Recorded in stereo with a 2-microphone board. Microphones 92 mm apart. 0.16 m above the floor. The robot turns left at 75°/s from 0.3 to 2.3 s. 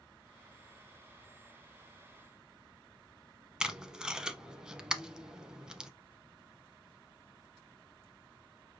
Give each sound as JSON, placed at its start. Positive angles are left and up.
{"t": 3.6, "sound": "tape being pulled", "side_deg": -10, "distance_m": 0.6}